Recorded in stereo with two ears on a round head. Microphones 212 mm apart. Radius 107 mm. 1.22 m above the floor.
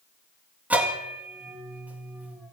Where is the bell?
5° right (ahead or behind), 1.9 m.